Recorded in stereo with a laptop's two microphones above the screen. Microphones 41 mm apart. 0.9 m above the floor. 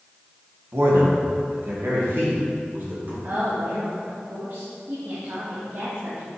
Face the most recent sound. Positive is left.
turn(degrees=-75)  # may be behind; listen again after turning